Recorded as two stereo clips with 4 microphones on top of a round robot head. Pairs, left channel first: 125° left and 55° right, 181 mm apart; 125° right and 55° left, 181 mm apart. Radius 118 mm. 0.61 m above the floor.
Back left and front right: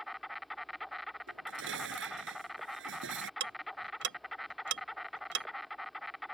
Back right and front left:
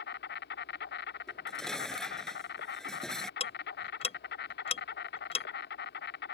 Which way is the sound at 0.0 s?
145° right.